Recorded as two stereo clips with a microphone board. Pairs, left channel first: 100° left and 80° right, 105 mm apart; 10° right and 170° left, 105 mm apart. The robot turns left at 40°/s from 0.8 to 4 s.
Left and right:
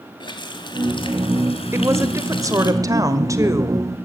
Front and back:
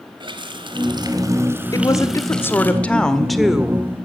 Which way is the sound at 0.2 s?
135° left.